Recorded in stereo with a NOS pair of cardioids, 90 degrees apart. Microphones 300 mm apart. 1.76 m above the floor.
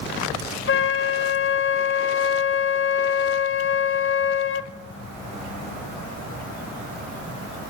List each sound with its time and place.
0.7 s a flute: 45° left, 1.8 m